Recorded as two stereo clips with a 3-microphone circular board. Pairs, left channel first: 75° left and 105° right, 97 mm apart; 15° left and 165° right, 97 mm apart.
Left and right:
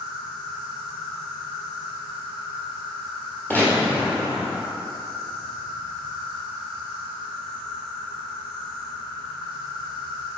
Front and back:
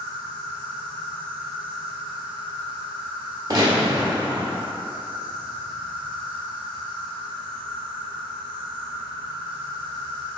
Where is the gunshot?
145° left, 1.3 m.